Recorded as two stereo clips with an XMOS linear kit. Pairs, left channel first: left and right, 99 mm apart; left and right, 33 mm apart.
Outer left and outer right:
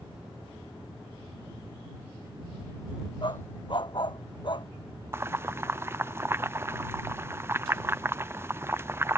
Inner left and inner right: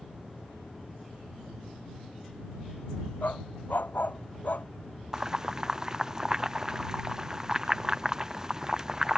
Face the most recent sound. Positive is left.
turn(degrees=-25)  # may be behind; listen again after turning